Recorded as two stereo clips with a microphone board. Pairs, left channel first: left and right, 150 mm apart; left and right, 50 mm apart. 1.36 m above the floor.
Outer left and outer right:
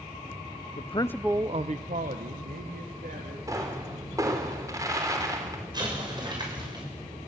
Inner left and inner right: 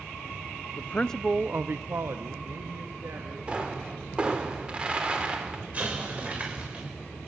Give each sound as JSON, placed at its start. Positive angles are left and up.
{"t": 0.8, "sound": "a man speaking", "side_deg": 50, "distance_m": 0.7}
{"t": 3.5, "sound": "a pop", "side_deg": -20, "distance_m": 3.5}
{"t": 5.7, "sound": "an explosion", "side_deg": -30, "distance_m": 7.0}